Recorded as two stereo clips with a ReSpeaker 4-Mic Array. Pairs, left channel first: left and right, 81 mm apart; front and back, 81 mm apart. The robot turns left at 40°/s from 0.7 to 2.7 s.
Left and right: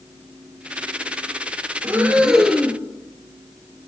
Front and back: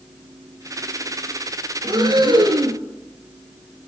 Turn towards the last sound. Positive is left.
turn(degrees=170)